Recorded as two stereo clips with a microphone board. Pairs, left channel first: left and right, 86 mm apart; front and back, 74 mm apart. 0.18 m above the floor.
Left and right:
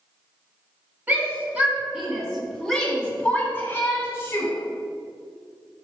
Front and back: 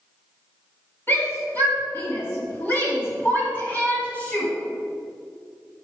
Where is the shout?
35° right, 2 m; by 4.5 s 55° left, 2 m.